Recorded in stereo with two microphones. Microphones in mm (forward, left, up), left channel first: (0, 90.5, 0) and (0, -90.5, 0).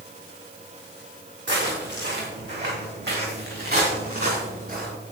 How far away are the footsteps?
About 4.5 m.